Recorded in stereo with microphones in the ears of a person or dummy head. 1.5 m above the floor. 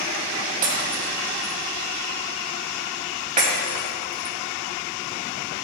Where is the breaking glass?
40° right (ahead or behind), 3 m.